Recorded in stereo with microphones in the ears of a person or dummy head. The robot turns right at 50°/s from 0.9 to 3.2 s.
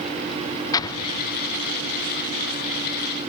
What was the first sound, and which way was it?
An explosion, 20° left (ahead or behind).